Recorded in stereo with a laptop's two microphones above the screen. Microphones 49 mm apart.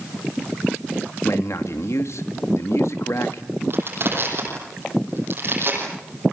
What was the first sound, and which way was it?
A man speaking, 65° left (ahead or behind).